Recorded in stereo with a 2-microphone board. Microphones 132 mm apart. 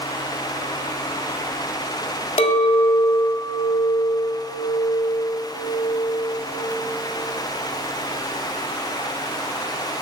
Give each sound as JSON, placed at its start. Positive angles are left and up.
{"t": 2.4, "sound": "a clink", "side_deg": 50, "distance_m": 1.9}